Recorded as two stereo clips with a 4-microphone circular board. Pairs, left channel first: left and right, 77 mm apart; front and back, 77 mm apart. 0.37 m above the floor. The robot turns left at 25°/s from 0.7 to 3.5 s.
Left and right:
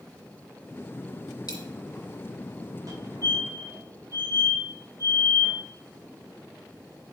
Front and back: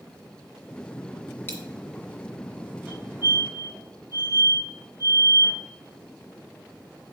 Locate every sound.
1.5 s a dropped coin: 65° left, 2 m; by 1.6 s 60° left, 2 m
2.9 s a fire alarm: 110° right, 3 m; by 5.6 s 125° right, 3 m